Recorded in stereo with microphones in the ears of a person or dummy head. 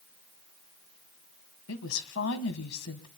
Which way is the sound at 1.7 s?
80° left.